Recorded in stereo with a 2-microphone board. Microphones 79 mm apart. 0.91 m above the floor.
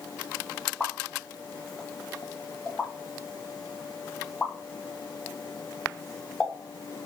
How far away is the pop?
About 0.9 m.